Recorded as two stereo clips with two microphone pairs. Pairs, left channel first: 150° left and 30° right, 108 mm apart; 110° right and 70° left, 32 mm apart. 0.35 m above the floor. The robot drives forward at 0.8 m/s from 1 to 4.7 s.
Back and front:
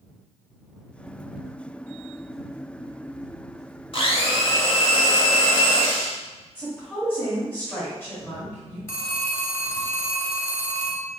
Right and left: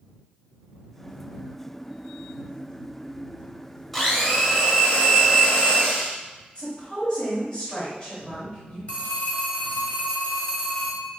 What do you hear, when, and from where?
3.9 s a blender: 170° left, 0.7 m; by 6.2 s 175° left, 1.3 m
6.5 s a woman speaking: 150° right, 1.4 m
8.9 s a phone ringing: 155° right, 1.1 m